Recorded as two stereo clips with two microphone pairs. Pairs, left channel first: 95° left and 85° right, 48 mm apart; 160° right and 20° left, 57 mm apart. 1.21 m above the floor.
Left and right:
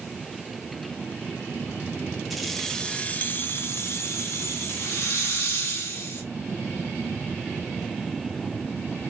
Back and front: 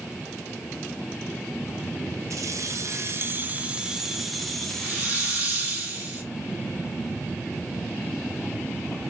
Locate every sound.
2.3 s keys jangling: 5° left, 0.7 m; by 5.8 s 125° left, 1.4 m
4.8 s a hiss: 80° left, 1.5 m